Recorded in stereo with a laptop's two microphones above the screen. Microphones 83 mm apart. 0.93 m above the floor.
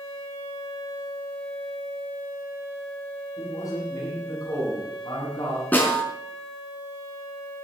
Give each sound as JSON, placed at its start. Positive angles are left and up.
{"t": 3.4, "sound": "a man speaking", "side_deg": 45, "distance_m": 9.5}
{"t": 5.7, "sound": "a snare drum", "side_deg": 20, "distance_m": 5.0}